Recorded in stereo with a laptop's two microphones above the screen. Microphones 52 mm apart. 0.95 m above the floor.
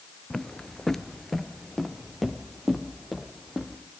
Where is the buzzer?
I don't hear a buzzer.